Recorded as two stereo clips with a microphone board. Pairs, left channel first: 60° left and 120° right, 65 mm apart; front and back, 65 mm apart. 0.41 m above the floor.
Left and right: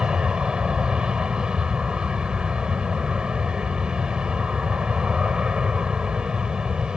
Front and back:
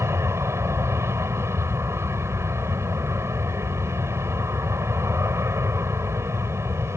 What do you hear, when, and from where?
0.0 s an aircraft: 170° left